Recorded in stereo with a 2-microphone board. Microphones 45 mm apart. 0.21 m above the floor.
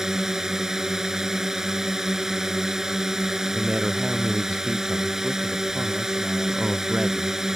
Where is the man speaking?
15° right (ahead or behind).